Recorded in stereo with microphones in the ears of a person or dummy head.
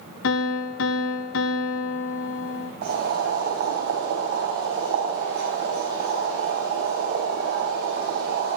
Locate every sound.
0.2 s a piano: 70° left (ahead or behind), 0.8 m
2.8 s boiling: 55° right (ahead or behind), 4 m